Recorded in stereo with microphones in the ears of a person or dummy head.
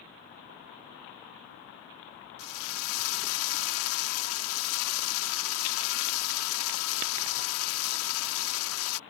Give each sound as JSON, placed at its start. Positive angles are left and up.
{"t": 2.4, "sound": "a drill", "side_deg": 80}